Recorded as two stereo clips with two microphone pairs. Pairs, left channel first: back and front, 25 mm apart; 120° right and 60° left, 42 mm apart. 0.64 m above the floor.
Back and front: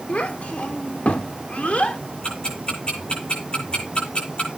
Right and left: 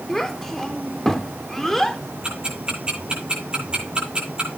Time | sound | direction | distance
0.1 | a child speaking | 165° left | 1.5 m
2.2 | ticking | 130° left | 9.5 m